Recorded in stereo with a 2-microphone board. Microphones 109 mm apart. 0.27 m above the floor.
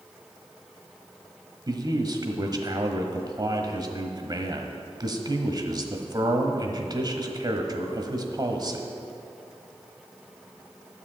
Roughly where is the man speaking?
Right.